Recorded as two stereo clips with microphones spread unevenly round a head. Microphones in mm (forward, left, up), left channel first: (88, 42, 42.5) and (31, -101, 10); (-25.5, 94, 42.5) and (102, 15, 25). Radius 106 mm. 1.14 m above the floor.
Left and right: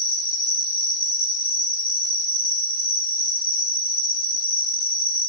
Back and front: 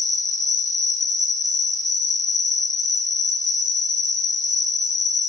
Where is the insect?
110° left, 0.8 m.